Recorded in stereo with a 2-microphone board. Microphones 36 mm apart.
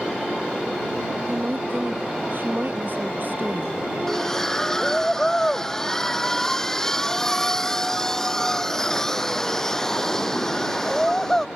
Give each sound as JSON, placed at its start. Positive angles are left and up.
{"t": 1.3, "sound": "a woman speaking", "side_deg": -55}
{"t": 4.1, "sound": "a splash", "side_deg": 15}